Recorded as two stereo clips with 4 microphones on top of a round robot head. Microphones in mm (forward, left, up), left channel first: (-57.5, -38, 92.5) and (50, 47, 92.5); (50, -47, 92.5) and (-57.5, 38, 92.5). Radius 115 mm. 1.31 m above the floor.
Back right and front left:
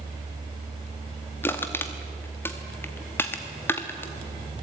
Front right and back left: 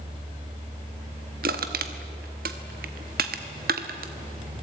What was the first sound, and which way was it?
Crushing, 145° left.